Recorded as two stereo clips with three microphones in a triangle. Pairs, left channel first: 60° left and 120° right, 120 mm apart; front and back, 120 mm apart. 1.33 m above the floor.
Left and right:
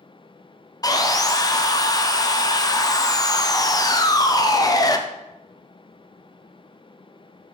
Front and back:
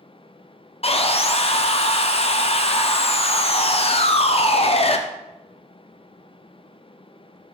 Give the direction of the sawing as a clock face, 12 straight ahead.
12 o'clock.